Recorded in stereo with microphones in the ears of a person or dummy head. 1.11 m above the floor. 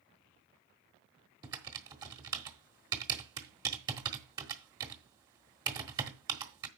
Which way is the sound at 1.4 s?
25° right (ahead or behind).